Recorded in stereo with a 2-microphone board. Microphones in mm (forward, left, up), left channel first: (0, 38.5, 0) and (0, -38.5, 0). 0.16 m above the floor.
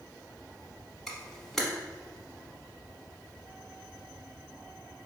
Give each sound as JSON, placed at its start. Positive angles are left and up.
{"t": 1.1, "sound": "a camera shutter", "side_deg": 5, "distance_m": 1.0}